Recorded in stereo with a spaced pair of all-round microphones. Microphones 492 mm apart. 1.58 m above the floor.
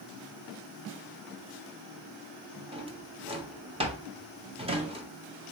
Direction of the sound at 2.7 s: 10° right (ahead or behind).